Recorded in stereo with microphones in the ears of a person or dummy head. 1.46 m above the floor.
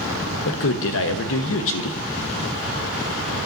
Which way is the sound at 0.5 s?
70° left (ahead or behind).